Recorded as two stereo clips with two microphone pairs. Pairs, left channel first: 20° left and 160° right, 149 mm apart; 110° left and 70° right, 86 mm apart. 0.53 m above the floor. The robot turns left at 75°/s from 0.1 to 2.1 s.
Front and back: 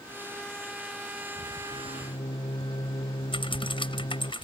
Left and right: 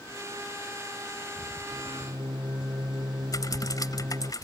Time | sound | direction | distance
1.7 | a microwave | 5° right | ?
3.3 | typing on a keyboard | 70° left | ?